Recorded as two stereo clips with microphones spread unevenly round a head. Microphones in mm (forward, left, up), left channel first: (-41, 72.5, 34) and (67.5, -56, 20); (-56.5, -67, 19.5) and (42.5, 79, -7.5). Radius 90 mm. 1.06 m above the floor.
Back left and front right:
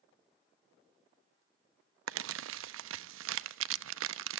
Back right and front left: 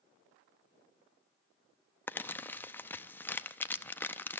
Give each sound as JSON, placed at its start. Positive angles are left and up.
{"t": 2.1, "sound": "crumpling", "azimuth_deg": -50, "distance_m": 0.6}